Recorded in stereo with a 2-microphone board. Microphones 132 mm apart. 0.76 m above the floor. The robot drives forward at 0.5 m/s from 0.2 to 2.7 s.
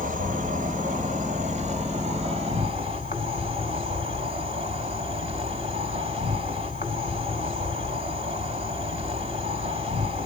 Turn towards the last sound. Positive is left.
turn(degrees=-50)  # may be behind; listen again after turning